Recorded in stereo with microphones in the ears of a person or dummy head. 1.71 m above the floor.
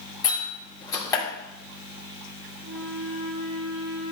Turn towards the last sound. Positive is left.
turn(degrees=-70)  # may be behind; listen again after turning